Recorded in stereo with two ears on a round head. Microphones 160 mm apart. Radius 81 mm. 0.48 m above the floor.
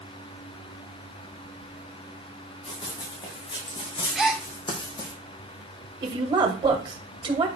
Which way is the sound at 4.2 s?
Centre (ahead or behind).